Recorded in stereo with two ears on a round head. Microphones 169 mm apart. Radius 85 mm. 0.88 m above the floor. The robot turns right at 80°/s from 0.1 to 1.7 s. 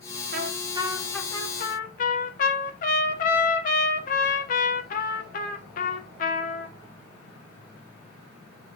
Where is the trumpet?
60° right, 1.7 m; by 6.8 s 50° left, 1.7 m.